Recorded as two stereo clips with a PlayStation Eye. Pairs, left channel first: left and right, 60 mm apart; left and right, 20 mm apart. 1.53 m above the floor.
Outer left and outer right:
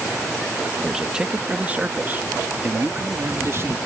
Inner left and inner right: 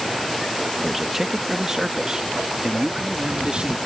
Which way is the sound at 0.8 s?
10° right (ahead or behind).